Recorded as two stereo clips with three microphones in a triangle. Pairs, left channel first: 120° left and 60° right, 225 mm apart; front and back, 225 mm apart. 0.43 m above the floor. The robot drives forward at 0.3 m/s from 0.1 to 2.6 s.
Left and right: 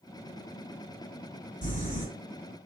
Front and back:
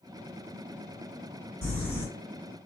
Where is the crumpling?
170° left, 1.7 m.